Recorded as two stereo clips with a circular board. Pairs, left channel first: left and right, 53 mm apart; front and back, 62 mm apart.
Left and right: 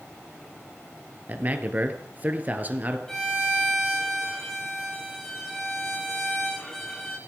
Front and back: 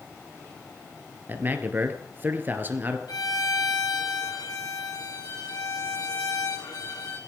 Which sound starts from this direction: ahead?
A violin, at 3.1 s.